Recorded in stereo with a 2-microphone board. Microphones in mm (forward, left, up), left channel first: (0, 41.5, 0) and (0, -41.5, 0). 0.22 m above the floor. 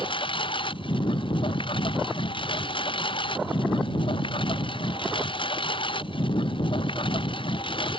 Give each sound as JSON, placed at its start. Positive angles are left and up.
{"t": 0.0, "sound": "a lawn mower", "side_deg": 85}